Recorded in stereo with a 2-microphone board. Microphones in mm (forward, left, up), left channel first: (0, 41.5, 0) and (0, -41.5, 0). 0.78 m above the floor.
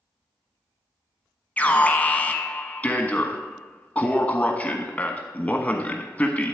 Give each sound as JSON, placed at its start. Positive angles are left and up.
{"t": 1.6, "sound": "an alarm", "side_deg": 15, "distance_m": 1.2}